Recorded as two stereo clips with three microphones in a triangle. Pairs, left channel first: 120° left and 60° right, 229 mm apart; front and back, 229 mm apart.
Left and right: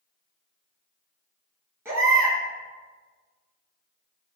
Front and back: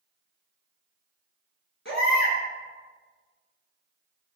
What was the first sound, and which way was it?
A baby crying, 15° left.